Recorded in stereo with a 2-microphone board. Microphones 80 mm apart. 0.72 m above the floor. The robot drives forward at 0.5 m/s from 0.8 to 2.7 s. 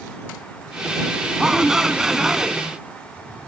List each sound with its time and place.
1.4 s a shout: 5° right (ahead or behind)